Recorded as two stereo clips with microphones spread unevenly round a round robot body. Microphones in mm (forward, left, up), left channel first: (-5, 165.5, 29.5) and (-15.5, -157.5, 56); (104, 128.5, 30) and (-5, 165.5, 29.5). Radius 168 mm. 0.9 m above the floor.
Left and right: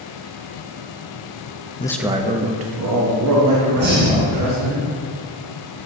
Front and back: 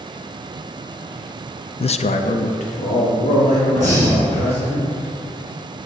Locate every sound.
1.8 s a man speaking: 20° left, 0.5 m; by 4.8 s 60° right, 2.5 m
3.8 s breathing: 35° right, 2.5 m